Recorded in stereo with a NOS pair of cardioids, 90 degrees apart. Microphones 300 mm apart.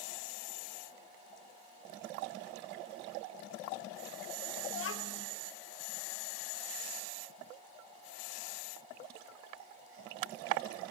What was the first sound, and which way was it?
A child speaking, 45° left.